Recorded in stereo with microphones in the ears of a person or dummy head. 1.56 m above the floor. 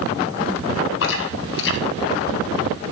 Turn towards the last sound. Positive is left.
turn(degrees=65)  # may be behind; listen again after turning